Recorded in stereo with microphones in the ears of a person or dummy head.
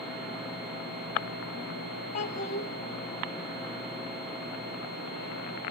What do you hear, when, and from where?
2.1 s a child speaking: 45° left (ahead or behind), 1.0 m